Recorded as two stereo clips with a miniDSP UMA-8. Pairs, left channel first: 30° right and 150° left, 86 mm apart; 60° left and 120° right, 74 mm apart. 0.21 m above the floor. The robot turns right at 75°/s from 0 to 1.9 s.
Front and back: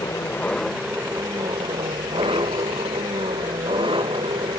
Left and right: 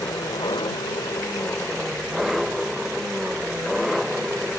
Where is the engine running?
10° left; by 4.6 s 150° left.